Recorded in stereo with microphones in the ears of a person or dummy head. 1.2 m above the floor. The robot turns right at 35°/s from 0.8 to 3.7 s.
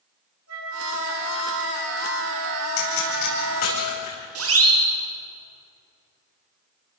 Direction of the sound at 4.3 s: 70° right (ahead or behind).